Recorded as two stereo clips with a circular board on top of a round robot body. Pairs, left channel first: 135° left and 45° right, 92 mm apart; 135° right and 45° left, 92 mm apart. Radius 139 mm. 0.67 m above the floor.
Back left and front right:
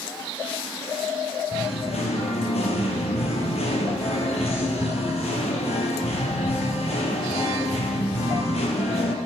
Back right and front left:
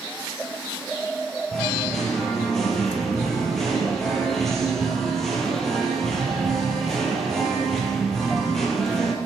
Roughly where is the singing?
Behind left.